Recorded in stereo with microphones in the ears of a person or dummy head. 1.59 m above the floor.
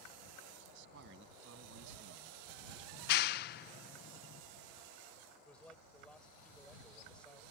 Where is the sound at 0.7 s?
60° right (ahead or behind); by 2.8 s 65° right (ahead or behind).